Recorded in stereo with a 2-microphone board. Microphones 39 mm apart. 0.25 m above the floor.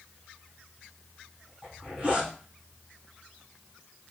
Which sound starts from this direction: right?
A zipper, at 1.6 s.